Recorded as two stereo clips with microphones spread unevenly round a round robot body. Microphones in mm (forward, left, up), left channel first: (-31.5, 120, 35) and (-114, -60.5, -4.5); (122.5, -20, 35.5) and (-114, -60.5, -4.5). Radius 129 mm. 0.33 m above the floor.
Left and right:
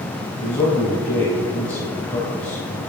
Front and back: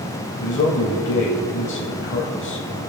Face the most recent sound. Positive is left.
turn(degrees=-25)